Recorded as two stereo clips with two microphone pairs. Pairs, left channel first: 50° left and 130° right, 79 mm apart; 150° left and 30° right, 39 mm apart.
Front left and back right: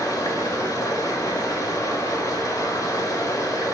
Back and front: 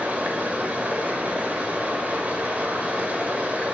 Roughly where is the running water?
Ahead.